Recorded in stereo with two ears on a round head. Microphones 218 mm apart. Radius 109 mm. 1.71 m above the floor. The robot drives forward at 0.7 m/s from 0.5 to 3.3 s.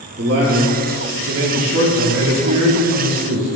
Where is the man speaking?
40° right (ahead or behind), 2.0 m; by 3.5 s 55° right (ahead or behind), 1.5 m.